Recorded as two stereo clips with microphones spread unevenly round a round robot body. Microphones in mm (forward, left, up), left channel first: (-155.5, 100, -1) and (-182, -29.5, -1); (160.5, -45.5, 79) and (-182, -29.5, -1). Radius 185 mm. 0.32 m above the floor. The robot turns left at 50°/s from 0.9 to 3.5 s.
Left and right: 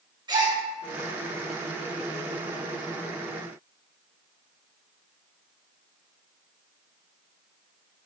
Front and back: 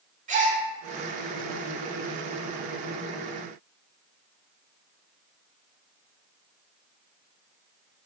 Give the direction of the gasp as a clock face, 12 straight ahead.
5 o'clock.